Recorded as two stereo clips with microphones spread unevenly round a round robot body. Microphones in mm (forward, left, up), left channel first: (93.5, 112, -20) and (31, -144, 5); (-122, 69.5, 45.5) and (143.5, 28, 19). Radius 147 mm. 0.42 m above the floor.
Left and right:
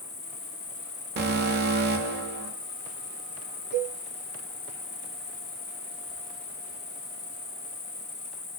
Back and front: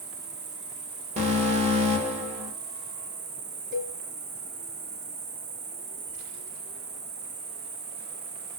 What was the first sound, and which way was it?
An insect, 15° left.